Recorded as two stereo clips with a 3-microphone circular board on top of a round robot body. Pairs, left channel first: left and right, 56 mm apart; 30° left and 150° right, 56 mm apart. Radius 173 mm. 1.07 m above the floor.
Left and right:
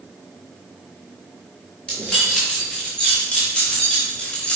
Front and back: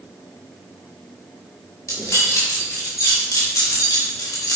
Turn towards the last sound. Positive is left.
turn(degrees=15)